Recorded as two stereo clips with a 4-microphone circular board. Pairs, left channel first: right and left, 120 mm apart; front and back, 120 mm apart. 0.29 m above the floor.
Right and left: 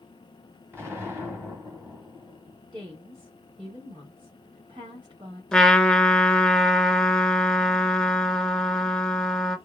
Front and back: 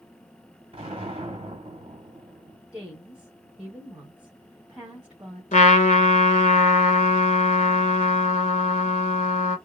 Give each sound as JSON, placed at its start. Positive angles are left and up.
{"t": 0.7, "sound": "an explosion", "azimuth_deg": 160, "distance_m": 2.5}
{"t": 2.7, "sound": "a woman speaking", "azimuth_deg": 105, "distance_m": 1.7}
{"t": 5.5, "sound": "a trumpet", "azimuth_deg": -5, "distance_m": 0.6}